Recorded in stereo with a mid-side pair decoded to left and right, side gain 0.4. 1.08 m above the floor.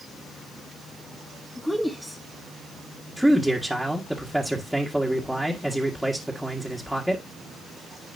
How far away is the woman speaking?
About 1.6 m.